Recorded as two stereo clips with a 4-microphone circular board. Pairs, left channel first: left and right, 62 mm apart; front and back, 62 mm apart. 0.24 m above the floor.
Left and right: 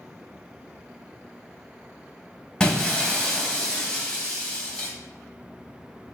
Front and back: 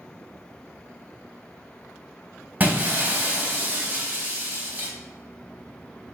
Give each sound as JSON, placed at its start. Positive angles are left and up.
{"t": 2.6, "sound": "breaking glass", "azimuth_deg": 155, "distance_m": 0.7}